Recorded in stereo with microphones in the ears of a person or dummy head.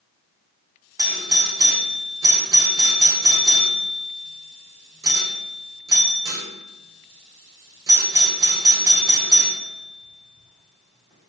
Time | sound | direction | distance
1.0 | a doorbell | 20° right (ahead or behind) | 0.5 m